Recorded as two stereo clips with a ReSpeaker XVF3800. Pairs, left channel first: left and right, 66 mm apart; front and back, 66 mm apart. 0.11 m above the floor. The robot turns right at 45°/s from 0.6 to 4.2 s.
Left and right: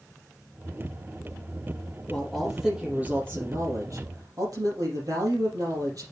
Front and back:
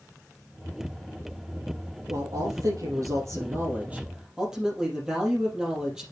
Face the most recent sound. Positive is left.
turn(degrees=-100)